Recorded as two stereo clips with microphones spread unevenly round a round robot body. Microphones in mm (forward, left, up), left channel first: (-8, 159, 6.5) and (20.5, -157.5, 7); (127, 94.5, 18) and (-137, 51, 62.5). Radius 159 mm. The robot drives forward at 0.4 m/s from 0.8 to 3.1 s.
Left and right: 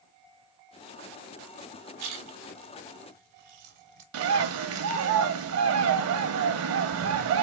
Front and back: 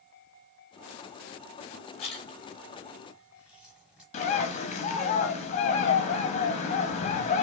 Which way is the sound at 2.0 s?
50° right.